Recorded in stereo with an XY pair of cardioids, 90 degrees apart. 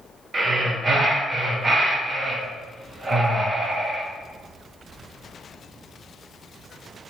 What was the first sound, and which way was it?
Breathing, 40° right.